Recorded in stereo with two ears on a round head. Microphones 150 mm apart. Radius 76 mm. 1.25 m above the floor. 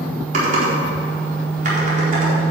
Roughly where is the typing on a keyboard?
Right.